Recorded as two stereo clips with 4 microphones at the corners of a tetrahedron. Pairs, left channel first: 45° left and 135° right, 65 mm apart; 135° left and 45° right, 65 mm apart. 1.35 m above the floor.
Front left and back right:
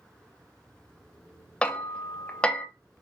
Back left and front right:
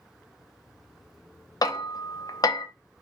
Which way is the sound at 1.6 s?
120° left.